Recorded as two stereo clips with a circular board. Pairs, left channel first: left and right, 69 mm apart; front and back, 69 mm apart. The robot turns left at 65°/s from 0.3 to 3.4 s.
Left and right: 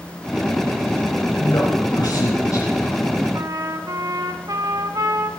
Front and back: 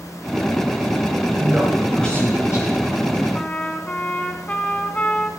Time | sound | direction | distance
1.4 | a man speaking | 125° left | 4.5 m
3.3 | a trumpet | 65° right | 1.2 m